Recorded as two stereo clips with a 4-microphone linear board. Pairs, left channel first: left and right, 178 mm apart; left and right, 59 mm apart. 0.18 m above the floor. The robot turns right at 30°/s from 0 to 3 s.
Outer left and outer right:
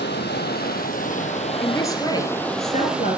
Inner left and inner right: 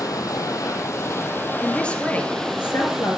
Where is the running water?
95° left, 1.9 m; by 3.2 s 175° right, 1.9 m.